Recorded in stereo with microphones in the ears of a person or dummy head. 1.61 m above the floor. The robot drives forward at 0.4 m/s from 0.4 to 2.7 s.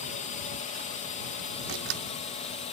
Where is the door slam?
75° right (ahead or behind); by 2.0 s 80° right.